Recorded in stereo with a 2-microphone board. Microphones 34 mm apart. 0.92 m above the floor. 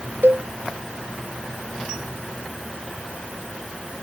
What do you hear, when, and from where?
0.2 s a cowbell: 80° right